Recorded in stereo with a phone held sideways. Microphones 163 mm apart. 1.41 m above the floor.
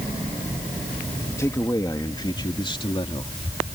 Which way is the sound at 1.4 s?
20° left (ahead or behind).